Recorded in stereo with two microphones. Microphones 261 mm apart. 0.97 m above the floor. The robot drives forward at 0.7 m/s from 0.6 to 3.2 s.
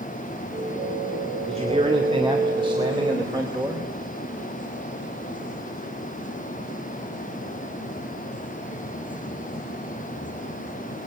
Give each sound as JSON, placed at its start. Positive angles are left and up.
{"t": 1.5, "sound": "a man speaking", "side_deg": -25, "distance_m": 3.0}